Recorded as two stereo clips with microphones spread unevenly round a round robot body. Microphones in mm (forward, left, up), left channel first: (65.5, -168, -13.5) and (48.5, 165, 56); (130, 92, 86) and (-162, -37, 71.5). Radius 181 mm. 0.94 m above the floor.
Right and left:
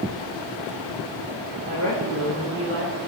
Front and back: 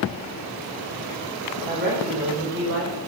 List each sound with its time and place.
1.6 s a woman speaking: 145° left, 4.5 m; by 3.0 s 155° left, 4.5 m